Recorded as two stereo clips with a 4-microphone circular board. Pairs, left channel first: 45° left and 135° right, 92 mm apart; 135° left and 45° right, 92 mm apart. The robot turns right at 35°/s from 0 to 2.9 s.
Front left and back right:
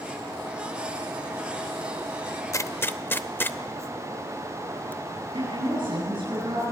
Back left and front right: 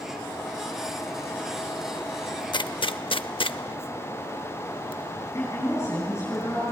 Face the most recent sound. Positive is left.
turn(degrees=-165)